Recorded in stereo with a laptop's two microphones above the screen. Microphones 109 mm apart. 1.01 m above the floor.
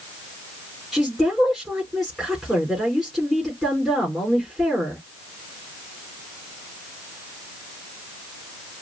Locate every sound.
0.9 s a woman speaking: centre (ahead or behind), 3.5 m